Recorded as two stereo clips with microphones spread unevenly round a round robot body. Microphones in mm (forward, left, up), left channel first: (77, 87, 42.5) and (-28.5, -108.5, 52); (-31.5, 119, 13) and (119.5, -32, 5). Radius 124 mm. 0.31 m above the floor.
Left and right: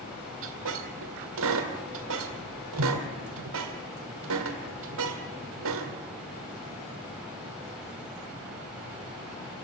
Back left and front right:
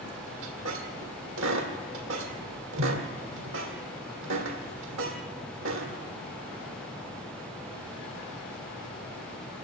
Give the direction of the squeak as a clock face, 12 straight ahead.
3 o'clock.